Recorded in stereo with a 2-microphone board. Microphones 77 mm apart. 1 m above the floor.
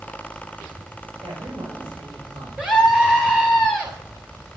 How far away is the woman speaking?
About 5.5 m.